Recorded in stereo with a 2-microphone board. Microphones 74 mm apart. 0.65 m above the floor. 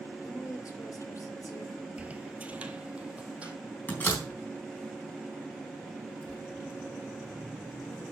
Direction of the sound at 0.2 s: 45° left (ahead or behind).